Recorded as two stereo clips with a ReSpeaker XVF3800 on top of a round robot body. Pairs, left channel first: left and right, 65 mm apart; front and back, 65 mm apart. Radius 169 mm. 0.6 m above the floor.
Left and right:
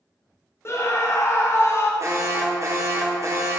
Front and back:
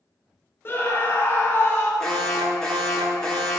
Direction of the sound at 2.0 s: 75° right.